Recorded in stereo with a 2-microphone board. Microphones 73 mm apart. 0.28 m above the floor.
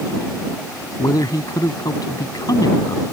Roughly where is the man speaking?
Left.